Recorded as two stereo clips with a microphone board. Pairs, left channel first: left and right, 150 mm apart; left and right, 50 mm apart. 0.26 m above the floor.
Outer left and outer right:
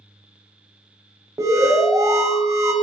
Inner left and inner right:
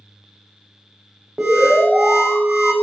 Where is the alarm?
20° right (ahead or behind), 0.9 m.